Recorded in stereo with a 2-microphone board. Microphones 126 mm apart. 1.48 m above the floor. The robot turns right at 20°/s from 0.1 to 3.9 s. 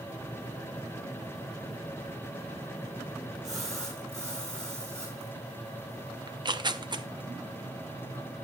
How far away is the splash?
About 6 m.